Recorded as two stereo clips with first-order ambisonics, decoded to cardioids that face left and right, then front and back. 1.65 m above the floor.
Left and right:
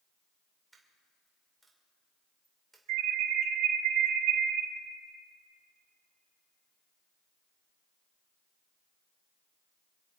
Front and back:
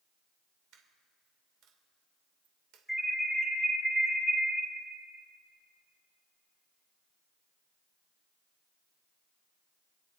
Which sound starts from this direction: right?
An alarm, at 2.9 s.